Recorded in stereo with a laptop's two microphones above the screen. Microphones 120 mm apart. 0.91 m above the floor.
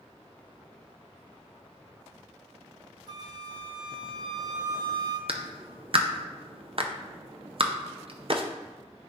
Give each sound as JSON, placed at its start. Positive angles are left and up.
{"t": 3.1, "sound": "a flute", "side_deg": -40, "distance_m": 0.8}
{"t": 5.3, "sound": "a clap", "side_deg": -55, "distance_m": 0.6}